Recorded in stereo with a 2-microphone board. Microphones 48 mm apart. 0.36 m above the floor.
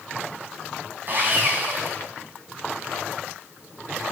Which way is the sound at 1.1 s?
45° right (ahead or behind).